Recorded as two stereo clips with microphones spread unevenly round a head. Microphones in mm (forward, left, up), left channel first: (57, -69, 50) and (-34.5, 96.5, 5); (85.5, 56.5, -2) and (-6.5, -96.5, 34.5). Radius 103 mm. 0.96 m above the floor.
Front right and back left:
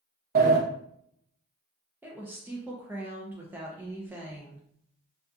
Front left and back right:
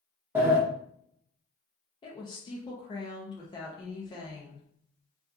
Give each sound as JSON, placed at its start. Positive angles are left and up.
{"t": 0.3, "sound": "a sliding door", "azimuth_deg": 155, "distance_m": 0.6}
{"t": 2.0, "sound": "a woman speaking", "azimuth_deg": 70, "distance_m": 0.5}